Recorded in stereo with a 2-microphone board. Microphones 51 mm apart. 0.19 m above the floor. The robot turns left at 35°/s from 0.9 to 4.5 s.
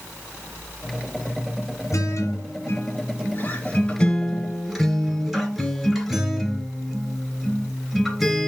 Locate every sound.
1.9 s a guitar: 90° left, 2.5 m; by 8.5 s straight ahead, 2.5 m